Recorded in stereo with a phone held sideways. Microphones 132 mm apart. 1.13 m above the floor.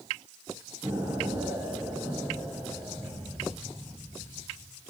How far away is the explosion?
About 2 m.